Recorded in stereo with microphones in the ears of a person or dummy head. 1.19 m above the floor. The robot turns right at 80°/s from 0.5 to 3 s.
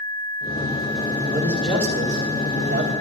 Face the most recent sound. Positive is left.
turn(degrees=-70)